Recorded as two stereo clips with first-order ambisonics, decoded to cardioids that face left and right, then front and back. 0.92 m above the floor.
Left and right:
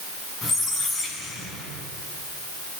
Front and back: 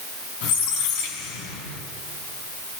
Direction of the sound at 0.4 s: 10° left.